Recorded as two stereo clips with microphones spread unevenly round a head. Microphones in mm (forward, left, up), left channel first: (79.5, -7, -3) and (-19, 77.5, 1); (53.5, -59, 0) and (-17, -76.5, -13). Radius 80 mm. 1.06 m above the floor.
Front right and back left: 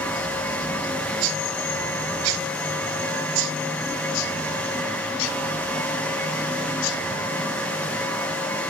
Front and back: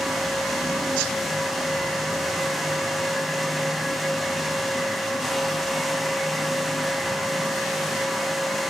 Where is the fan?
105° right, 1.1 m.